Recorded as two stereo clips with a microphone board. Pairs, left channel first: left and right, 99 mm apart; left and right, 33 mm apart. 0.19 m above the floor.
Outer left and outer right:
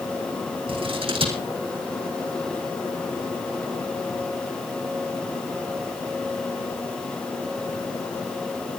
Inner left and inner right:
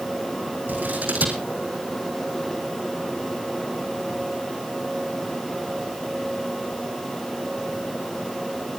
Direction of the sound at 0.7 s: 65° right (ahead or behind).